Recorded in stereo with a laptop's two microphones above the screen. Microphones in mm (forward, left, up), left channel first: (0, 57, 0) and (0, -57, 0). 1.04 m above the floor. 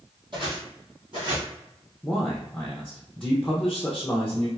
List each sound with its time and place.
0.3 s footsteps: 45° right (ahead or behind), 1.6 m
2.0 s a man speaking: 10° left (ahead or behind), 0.5 m